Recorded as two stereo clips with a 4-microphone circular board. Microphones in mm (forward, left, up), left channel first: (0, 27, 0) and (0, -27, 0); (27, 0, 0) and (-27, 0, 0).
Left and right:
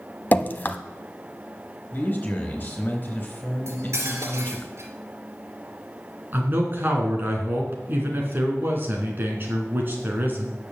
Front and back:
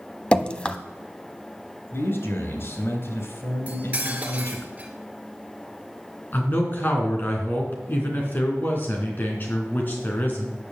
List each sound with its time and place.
0.3 s dripping: 60° left, 0.7 m
1.9 s a man speaking: 35° left, 3.5 m
3.7 s cutlery clinking: 115° right, 2.5 m
6.3 s a man speaking: 45° right, 3 m